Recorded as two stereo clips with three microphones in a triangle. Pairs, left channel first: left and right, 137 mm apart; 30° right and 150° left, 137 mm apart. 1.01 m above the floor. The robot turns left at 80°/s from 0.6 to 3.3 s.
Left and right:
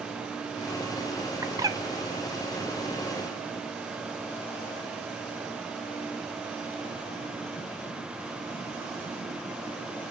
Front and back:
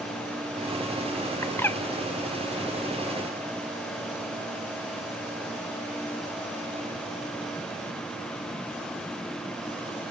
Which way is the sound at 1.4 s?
65° right.